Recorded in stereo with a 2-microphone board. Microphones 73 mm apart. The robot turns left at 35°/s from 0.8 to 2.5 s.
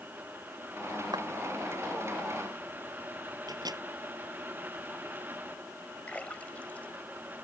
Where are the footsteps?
85° right.